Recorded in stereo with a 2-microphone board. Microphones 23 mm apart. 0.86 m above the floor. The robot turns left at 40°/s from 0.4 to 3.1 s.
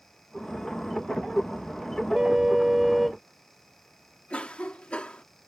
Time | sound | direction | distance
2.1 | a car horn | 145° right | ?
4.3 | a cough | 60° left (ahead or behind) | ?